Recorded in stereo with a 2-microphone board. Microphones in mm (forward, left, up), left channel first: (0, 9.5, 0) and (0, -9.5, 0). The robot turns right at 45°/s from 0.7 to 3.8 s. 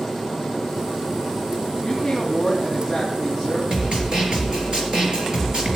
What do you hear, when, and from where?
1.8 s a woman speaking: 130° left, 3 m; by 3.6 s 150° right, 3 m
3.7 s a snare drum: 35° right (ahead or behind), 3 m; by 5.8 s 40° right (ahead or behind), 3 m